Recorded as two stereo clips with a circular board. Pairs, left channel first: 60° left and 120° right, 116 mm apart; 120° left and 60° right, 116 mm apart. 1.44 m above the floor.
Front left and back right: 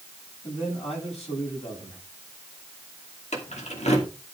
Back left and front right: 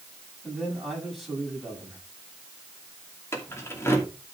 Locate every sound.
0.4 s a man speaking: 30° left, 8.5 m
3.3 s keys jangling: 55° left, 2.5 m